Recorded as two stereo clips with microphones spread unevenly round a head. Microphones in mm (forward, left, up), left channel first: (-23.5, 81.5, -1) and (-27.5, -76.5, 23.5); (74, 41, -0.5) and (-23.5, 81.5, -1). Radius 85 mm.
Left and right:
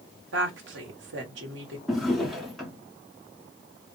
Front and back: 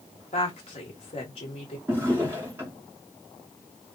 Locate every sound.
0.3 s a woman speaking: 70° right, 1.1 m
1.9 s a drawer: 165° right, 0.9 m